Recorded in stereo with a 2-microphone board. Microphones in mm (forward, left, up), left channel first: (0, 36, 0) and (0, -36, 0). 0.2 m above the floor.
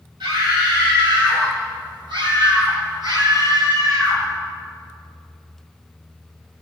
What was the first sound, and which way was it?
A scream, 80° right.